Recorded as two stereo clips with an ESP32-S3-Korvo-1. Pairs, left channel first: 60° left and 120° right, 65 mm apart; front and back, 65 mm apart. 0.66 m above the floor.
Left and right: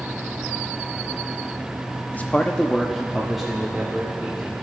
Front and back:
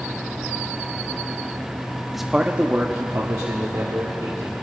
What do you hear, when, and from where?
2.1 s a man speaking: 95° left, 0.6 m; by 4.5 s 155° left, 1.8 m